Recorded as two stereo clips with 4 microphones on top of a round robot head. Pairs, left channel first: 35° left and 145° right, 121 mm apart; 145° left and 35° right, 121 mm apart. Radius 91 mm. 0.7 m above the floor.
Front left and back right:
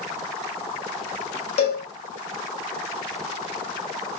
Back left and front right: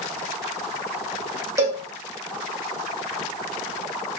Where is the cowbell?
25° left, 1.9 m.